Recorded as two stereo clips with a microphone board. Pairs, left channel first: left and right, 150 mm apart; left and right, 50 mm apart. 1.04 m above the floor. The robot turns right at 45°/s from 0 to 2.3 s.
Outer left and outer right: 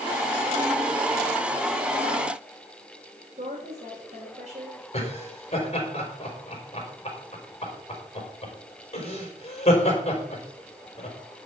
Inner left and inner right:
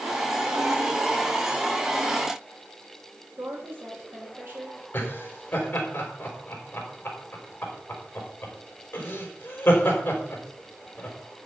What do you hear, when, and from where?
3.4 s a woman speaking: 45° right (ahead or behind), 5 m
4.9 s laughter: 40° left (ahead or behind), 4.5 m